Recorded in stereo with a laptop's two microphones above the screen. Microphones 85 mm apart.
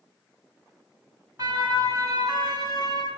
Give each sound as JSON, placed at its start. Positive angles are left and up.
{"t": 1.4, "sound": "a siren", "side_deg": -45, "distance_m": 7.5}